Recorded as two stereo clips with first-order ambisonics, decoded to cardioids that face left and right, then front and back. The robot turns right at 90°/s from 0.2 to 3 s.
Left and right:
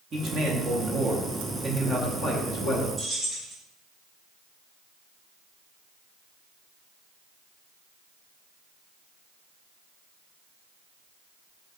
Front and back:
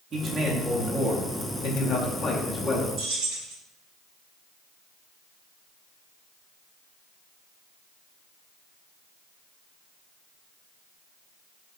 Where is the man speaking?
135° right, 0.8 m; by 2.9 s 105° left, 0.8 m.